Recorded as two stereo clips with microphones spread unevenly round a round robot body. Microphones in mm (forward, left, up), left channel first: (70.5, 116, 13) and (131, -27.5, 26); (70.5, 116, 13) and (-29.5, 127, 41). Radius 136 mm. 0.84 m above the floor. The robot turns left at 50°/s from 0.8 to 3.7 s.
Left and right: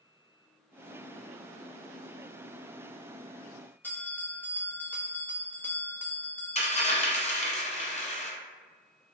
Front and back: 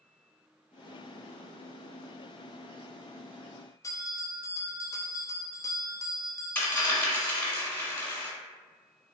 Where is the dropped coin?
70° left, 1.4 m.